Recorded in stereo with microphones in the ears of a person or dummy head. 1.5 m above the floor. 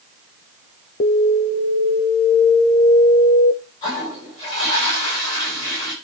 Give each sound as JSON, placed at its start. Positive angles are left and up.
{"t": 1.0, "sound": "an alarm", "side_deg": 50, "distance_m": 0.7}
{"t": 3.8, "sound": "a toilet flushing", "side_deg": 40, "distance_m": 6.5}